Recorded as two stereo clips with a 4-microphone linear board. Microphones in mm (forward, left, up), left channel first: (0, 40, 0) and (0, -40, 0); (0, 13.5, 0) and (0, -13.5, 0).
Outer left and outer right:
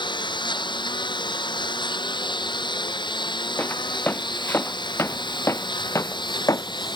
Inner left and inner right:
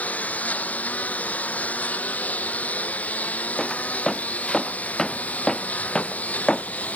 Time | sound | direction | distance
0.0 | a lawn mower | 70° left (ahead or behind) | ?
3.6 | footsteps | 25° left (ahead or behind) | ?